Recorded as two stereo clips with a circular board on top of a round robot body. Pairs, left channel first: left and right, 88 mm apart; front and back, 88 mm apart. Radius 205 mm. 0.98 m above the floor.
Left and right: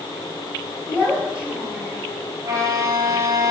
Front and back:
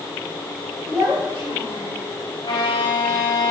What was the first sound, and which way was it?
A child speaking, 165° right.